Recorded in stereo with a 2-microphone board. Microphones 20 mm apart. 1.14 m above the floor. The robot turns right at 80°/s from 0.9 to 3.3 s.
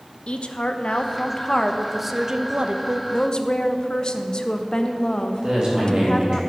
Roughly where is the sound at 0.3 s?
Left.